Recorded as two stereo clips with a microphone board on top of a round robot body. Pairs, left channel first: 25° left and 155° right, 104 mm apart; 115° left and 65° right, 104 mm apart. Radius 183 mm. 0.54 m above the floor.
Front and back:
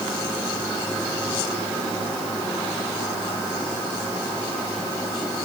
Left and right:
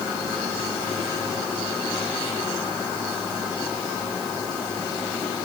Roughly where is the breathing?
I don't hear breathing.